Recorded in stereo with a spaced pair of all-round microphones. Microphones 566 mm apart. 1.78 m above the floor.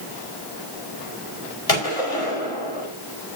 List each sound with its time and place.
1.7 s a gunshot: 80° left, 5.5 m